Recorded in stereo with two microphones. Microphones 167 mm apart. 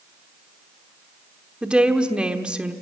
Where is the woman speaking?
5° right (ahead or behind), 1.0 m.